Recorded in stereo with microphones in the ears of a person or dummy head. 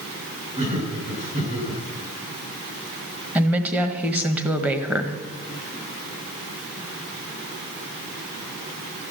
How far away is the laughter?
About 9 m.